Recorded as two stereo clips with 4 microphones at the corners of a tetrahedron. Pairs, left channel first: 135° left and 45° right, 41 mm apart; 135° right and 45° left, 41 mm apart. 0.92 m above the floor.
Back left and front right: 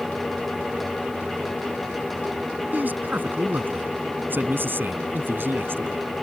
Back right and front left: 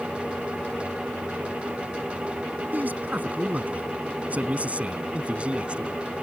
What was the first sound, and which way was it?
A man speaking, 5° right.